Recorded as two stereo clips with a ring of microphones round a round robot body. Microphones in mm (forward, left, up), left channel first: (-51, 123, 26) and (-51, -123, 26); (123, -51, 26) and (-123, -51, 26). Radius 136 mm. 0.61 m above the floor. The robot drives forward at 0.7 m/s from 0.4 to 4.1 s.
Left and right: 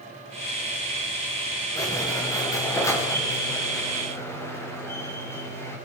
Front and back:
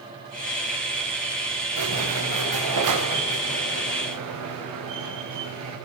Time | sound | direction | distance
1.8 | a squeak | 170° left | 6.5 m